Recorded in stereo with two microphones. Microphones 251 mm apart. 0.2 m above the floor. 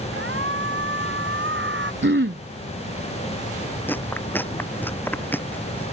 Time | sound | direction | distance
0.1 | a shout | 50° right (ahead or behind) | ?
2.0 | throat clearing | 50° right (ahead or behind) | ?
3.9 | chewing | 10° left (ahead or behind) | ?